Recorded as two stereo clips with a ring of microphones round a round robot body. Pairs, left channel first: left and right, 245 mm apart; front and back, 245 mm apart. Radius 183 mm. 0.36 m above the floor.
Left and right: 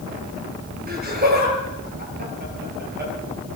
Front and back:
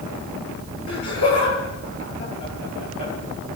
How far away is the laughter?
About 9 m.